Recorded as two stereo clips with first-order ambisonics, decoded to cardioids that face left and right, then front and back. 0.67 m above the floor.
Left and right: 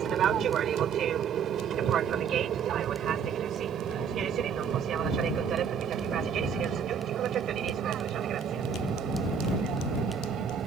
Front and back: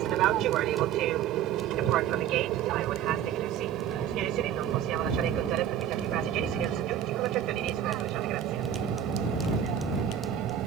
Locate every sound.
0.0 s an aircraft: 145° right